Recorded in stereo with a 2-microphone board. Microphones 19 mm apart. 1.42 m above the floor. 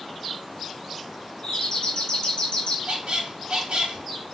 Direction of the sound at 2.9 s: 60° right (ahead or behind).